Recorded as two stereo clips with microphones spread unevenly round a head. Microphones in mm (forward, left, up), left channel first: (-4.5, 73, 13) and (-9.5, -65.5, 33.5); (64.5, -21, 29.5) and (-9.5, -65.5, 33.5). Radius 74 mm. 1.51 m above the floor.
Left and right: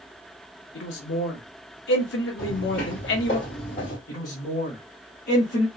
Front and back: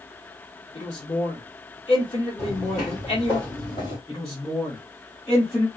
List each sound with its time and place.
0.8 s a man speaking: 90° left, 0.9 m
2.4 s footsteps: 95° left, 1.9 m; by 4.0 s 55° left, 1.8 m
4.1 s a man speaking: 105° left, 0.9 m